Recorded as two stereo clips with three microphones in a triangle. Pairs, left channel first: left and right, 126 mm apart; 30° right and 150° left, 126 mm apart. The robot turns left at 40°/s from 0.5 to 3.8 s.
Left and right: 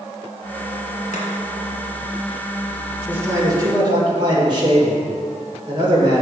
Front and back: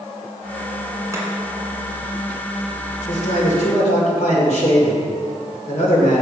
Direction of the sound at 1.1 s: 85° left.